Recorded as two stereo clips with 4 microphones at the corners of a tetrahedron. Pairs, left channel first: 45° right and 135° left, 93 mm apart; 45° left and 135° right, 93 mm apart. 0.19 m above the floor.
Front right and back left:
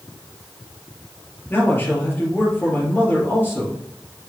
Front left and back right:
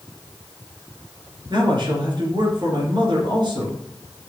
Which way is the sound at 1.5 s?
110° right.